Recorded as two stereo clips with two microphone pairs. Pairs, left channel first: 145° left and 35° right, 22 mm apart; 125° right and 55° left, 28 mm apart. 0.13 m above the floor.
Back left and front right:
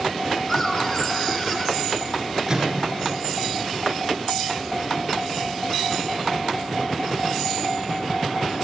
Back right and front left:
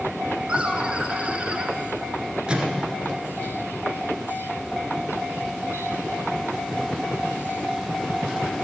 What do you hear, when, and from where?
0.5 s laughter: 80° left, 1.5 m
2.5 s a microwave: 15° left, 1.6 m